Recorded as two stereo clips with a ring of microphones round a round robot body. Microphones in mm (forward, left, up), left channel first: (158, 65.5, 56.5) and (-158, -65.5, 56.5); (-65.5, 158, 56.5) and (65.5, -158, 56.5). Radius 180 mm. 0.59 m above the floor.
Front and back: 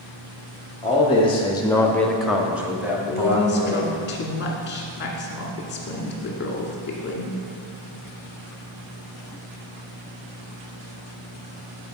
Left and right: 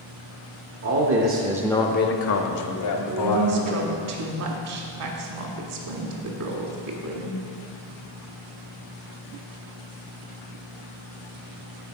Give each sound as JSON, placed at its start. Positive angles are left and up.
{"t": 0.8, "sound": "a man speaking", "azimuth_deg": -50, "distance_m": 1.0}
{"t": 3.1, "sound": "a woman speaking", "azimuth_deg": -35, "distance_m": 1.4}